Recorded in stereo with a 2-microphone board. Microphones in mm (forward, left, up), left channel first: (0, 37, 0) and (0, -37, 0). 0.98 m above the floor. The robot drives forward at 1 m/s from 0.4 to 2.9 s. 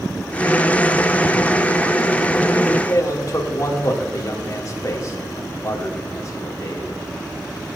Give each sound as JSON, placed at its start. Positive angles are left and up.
{"t": 2.9, "sound": "a man speaking", "side_deg": 45, "distance_m": 1.6}